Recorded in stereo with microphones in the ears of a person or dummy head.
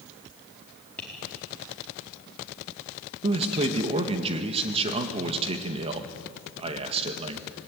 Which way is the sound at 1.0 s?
5° left (ahead or behind).